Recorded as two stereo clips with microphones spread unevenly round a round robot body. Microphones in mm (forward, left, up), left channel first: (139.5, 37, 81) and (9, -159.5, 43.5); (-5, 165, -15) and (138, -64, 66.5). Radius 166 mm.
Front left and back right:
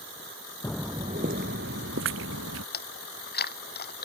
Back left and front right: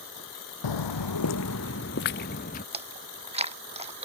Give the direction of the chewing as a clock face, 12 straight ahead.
12 o'clock.